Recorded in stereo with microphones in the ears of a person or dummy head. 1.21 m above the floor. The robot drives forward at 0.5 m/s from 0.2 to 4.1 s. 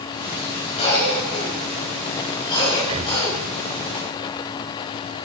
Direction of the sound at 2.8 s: 30° right (ahead or behind).